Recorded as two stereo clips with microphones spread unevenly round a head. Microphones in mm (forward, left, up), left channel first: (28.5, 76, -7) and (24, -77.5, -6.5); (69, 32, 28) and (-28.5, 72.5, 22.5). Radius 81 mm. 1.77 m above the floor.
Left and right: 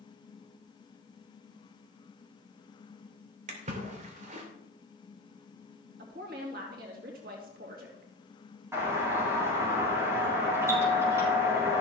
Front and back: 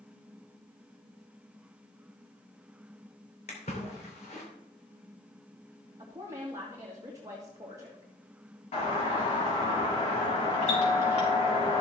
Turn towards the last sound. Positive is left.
turn(degrees=-20)